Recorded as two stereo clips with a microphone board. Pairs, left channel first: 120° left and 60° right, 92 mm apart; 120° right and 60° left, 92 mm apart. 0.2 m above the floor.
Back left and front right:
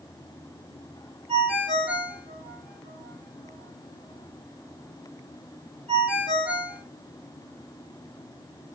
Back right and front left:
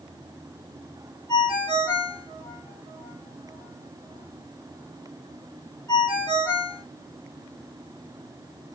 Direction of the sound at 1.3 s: 60° right.